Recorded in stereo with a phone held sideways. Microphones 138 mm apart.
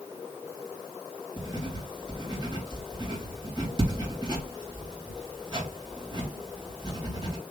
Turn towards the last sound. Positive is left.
turn(degrees=-35)  # may be behind; listen again after turning